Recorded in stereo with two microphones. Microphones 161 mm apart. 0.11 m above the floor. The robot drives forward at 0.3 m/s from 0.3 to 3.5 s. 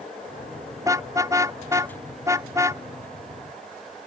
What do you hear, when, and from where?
0.8 s a car horn: 20° right (ahead or behind)